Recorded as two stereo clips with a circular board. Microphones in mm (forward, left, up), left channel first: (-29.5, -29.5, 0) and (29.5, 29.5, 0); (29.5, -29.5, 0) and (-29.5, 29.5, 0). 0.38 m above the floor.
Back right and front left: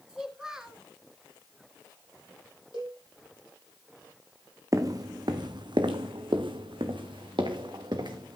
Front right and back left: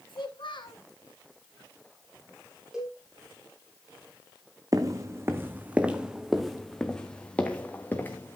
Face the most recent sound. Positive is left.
turn(degrees=20)